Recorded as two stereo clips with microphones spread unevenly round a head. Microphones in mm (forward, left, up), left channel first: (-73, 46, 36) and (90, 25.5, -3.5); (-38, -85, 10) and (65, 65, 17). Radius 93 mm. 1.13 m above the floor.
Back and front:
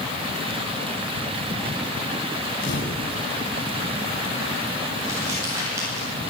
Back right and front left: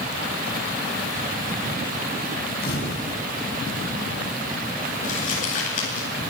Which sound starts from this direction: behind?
A camera shutter, at 2.6 s.